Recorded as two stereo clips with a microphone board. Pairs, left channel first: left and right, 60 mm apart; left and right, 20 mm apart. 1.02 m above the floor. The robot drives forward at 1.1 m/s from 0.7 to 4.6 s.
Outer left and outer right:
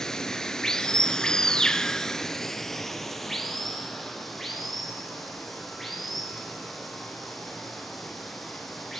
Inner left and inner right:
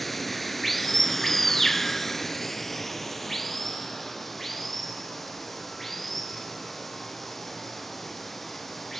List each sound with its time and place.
0.0 s running water: 10° left (ahead or behind), 1.3 m; by 9.0 s 5° left (ahead or behind), 3.5 m